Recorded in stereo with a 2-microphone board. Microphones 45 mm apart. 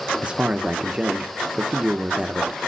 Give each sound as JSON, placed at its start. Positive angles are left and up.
{"t": 0.2, "sound": "a man speaking", "side_deg": -25, "distance_m": 0.8}